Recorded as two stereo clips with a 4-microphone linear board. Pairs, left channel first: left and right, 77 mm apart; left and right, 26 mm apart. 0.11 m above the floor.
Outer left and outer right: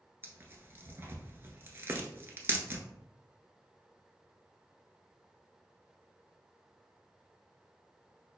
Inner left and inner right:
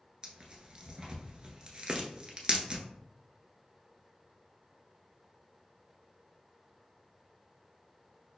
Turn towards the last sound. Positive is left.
turn(degrees=-30)  # may be behind; listen again after turning